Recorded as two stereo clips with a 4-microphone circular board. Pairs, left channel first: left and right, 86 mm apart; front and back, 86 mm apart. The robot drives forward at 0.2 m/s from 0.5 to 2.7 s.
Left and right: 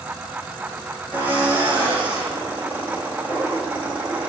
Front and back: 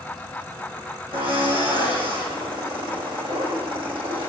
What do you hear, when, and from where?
1.1 s a drill: 165° right, 8 m
3.3 s laughter: 170° right, 7.5 m